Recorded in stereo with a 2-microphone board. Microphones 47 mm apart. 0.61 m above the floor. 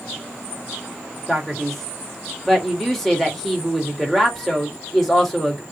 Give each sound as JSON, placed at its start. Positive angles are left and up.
{"t": 1.3, "sound": "a man speaking", "side_deg": 5, "distance_m": 2.0}